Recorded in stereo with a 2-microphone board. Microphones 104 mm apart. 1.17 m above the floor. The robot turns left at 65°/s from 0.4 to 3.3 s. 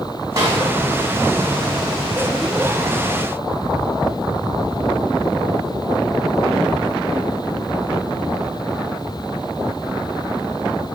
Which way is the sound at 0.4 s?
35° right (ahead or behind).